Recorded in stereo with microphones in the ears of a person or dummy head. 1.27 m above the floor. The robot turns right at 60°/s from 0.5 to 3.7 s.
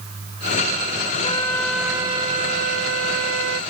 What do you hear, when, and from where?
1.2 s a flute: 145° left; by 3.6 s 70° right